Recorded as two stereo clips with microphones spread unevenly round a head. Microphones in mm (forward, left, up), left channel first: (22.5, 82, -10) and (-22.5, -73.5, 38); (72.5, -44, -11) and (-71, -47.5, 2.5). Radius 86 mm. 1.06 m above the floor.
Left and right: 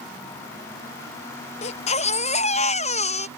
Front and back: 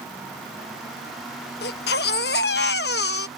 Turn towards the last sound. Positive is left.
turn(degrees=25)